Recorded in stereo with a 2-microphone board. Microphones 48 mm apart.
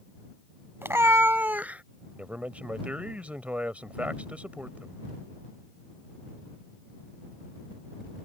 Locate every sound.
0.8 s a cat meowing: 55° right (ahead or behind); by 1.8 s 30° right (ahead or behind)
2.1 s a man speaking: 30° right (ahead or behind)